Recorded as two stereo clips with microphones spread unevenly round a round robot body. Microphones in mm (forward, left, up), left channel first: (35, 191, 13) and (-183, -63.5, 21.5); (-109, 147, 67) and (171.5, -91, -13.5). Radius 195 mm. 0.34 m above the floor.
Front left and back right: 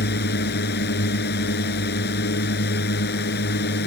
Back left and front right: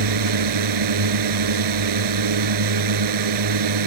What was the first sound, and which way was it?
A drone, 15° right.